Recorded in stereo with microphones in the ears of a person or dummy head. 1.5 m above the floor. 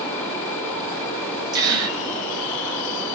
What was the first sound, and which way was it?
A gasp, 15° right (ahead or behind).